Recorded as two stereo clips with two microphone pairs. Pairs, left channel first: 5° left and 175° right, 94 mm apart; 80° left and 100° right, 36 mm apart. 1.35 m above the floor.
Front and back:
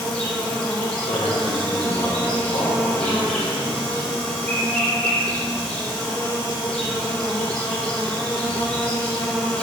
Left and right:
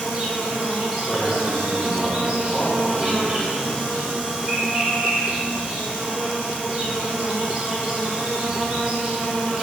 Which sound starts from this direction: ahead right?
An insect, at 0.0 s.